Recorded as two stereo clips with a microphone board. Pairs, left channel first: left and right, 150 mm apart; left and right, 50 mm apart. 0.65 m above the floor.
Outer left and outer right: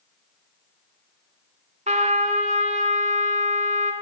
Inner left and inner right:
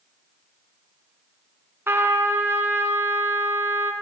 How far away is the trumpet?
About 1.7 m.